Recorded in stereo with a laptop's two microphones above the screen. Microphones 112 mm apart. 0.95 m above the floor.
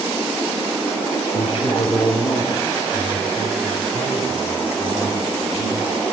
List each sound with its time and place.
1.3 s a man speaking: 65° left (ahead or behind), 2 m; by 5.9 s 55° left (ahead or behind), 6.5 m